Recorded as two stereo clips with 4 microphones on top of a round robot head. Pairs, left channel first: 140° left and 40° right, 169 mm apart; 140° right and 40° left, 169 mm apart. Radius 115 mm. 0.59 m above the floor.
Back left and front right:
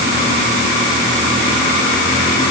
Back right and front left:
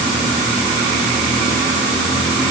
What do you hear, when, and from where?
Only background noise.